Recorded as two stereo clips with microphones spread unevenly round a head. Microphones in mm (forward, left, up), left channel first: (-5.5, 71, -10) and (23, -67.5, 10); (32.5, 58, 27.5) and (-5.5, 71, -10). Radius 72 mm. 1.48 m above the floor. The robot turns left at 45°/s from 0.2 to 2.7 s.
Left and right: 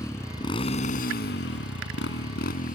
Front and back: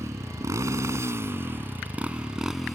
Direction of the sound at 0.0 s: 175° left.